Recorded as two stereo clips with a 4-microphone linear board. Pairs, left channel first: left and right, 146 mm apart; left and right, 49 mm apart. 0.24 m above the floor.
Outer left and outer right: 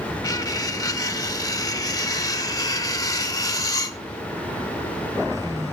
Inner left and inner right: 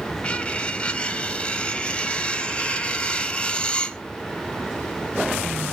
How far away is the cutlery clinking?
About 0.6 m.